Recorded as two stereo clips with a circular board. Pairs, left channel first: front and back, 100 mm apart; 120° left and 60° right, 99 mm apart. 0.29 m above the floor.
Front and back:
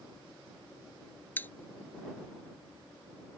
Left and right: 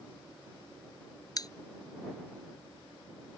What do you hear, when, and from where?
1.4 s a pop: 70° left